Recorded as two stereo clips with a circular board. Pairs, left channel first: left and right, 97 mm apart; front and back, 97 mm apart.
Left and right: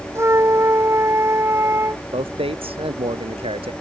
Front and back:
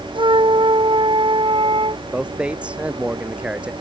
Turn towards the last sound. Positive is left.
turn(degrees=-100)